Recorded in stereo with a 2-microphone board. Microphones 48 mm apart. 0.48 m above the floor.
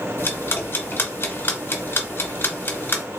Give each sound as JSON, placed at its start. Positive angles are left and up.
{"t": 0.2, "sound": "ticking", "side_deg": 50, "distance_m": 1.0}